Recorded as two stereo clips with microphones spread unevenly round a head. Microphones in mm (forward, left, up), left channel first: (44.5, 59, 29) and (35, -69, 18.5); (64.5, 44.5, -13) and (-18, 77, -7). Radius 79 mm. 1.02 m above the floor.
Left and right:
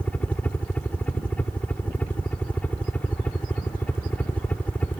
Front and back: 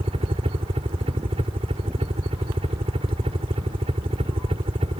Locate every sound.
0.0 s a helicopter: 170° left